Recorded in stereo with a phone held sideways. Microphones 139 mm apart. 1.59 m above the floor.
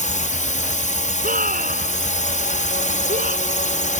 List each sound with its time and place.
0.0 s a drone: 60° left (ahead or behind)
1.2 s a scream: 80° right